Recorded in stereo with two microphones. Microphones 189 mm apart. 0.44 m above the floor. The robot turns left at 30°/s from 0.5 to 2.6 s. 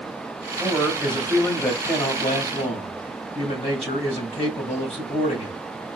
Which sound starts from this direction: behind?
A man speaking, at 0.6 s.